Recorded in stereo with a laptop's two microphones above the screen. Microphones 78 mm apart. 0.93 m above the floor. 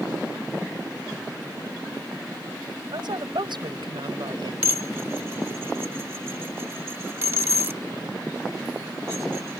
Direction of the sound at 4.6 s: 30° right (ahead or behind).